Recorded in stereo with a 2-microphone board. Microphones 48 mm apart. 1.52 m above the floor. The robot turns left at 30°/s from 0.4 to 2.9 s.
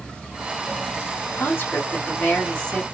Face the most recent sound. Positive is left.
turn(degrees=15)